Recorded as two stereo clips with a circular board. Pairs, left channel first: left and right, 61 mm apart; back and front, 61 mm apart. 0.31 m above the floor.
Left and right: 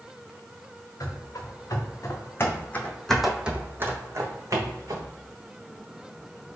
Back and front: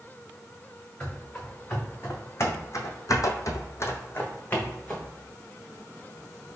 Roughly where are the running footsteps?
Behind left.